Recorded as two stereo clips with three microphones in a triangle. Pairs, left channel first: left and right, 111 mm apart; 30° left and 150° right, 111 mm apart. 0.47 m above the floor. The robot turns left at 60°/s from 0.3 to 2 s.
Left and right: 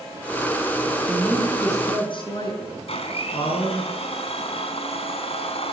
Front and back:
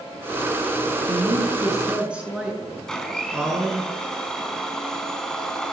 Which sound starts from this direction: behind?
A woman speaking, at 1.1 s.